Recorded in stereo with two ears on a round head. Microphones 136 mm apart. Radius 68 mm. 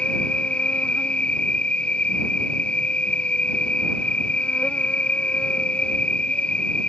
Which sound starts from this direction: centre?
An insect, at 0.0 s.